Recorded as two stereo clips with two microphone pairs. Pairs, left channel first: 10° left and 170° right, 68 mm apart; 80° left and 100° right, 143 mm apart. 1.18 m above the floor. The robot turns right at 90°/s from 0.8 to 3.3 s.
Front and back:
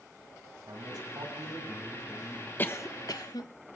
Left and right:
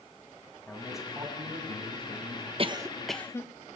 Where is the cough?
50° right, 1.3 m; by 3.5 s 10° left, 1.3 m.